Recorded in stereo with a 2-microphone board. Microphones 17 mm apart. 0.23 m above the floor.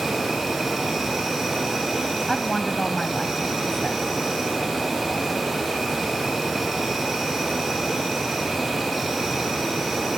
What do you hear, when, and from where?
0.0 s an insect: 5° right (ahead or behind), 8 m
2.3 s a woman speaking: 20° left (ahead or behind), 1.1 m